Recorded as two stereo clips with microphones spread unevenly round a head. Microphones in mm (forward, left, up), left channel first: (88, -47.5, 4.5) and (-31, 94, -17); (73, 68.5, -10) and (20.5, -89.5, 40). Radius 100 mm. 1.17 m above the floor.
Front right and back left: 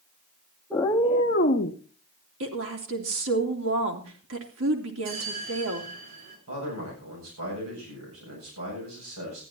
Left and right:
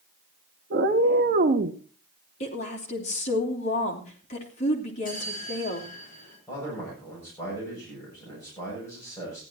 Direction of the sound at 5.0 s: 125° left.